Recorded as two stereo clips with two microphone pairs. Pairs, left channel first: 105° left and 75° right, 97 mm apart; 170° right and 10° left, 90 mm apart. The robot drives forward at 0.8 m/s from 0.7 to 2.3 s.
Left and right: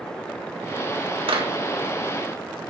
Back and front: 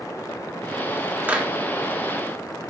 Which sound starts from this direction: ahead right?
A clap, at 1.3 s.